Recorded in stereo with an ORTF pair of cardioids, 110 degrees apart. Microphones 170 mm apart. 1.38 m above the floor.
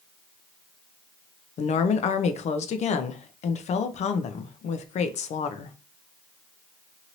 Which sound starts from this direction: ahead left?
A woman speaking, at 1.6 s.